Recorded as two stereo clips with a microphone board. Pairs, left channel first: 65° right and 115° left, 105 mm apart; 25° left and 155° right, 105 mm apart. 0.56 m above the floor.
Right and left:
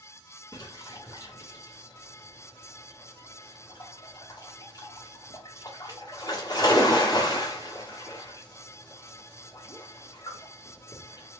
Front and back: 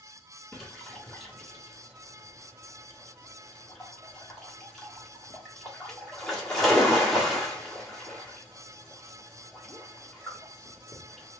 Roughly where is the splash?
Ahead right.